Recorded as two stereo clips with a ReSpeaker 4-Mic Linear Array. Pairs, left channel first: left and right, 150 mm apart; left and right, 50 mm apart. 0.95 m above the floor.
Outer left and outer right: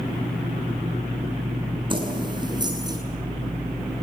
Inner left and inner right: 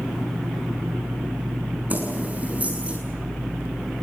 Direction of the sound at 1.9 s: 35° right (ahead or behind).